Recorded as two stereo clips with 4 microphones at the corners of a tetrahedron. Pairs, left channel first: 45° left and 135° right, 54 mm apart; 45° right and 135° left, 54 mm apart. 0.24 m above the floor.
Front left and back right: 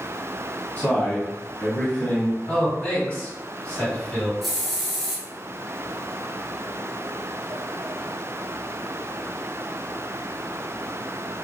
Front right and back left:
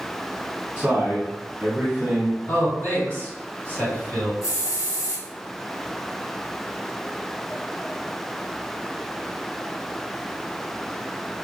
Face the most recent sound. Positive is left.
turn(degrees=-45)